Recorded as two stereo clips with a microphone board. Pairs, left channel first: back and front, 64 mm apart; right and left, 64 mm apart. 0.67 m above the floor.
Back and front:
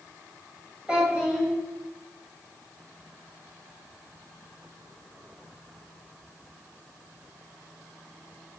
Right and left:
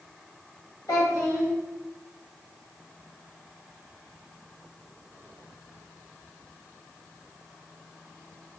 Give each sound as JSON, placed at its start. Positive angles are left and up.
{"t": 0.9, "sound": "a child speaking", "azimuth_deg": -70, "distance_m": 1.7}